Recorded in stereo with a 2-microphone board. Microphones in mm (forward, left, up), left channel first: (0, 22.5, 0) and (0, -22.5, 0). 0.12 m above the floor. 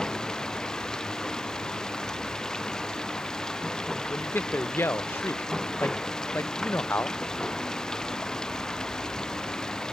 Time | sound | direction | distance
0.0 | running water | 15° left (ahead or behind) | ?
4.1 | a man speaking | 55° left (ahead or behind) | ?